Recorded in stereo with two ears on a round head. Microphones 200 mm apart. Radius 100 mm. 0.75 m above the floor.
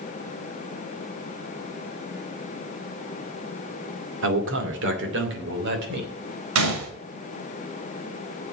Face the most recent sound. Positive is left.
turn(degrees=-65)  # may be behind; listen again after turning